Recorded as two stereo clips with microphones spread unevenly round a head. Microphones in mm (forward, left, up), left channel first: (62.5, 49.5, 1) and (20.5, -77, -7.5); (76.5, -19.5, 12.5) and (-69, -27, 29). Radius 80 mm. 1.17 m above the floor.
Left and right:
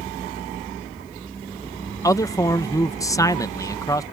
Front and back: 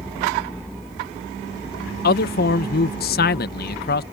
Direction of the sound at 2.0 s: 5° left.